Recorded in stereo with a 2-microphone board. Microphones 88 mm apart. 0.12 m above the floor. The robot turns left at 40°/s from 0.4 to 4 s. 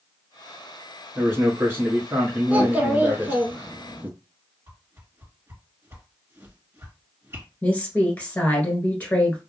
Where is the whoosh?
30° right (ahead or behind), 1.7 m.